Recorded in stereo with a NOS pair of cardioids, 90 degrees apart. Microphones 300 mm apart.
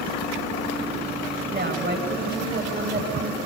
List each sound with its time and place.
1.5 s a woman speaking: 25° right, 9 m